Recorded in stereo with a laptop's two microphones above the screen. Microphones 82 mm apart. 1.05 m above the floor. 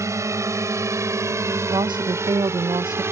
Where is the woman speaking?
70° right (ahead or behind).